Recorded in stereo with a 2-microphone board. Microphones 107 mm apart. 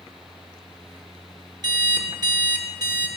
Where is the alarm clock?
40° right (ahead or behind), 1.0 m.